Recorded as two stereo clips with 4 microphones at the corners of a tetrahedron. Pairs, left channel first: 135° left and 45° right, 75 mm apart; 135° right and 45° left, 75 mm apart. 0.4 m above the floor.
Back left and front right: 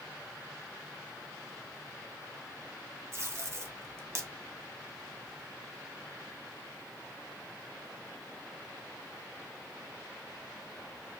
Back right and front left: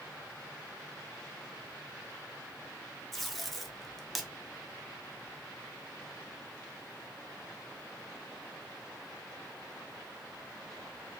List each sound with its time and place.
3.1 s tape being pulled: 50° right, 0.6 m